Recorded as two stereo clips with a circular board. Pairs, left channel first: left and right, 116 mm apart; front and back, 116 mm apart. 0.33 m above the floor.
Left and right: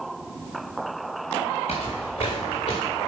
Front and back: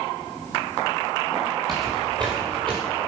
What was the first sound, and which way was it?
Footsteps, 120° left.